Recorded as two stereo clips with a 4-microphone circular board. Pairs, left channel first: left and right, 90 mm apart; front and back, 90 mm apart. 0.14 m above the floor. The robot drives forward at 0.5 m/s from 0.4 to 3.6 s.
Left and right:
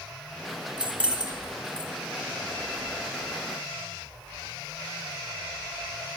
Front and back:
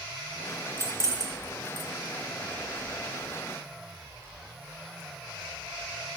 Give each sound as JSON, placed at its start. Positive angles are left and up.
{"t": 0.8, "sound": "keys jangling", "azimuth_deg": -155, "distance_m": 0.8}